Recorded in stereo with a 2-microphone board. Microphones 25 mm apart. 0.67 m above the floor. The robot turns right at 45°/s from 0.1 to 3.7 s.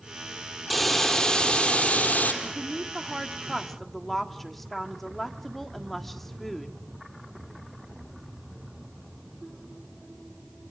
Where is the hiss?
5° right, 4 m; by 2.3 s 70° left, 4 m.